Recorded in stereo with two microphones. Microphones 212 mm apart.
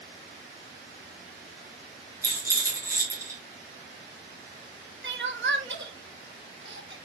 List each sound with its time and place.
2.2 s a rattle: 15° right (ahead or behind), 2.5 m
5.0 s crying: 60° right (ahead or behind), 0.7 m